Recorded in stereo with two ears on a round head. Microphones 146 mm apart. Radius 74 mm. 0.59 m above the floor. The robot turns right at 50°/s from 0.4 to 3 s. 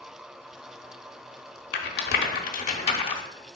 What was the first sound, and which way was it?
A rattle, 65° left (ahead or behind).